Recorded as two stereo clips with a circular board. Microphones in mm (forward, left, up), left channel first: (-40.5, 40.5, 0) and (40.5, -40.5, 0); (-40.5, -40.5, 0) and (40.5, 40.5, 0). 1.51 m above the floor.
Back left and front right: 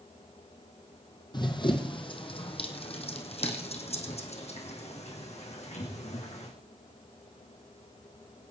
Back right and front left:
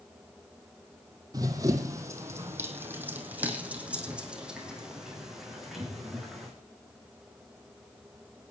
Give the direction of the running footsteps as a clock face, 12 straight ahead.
9 o'clock.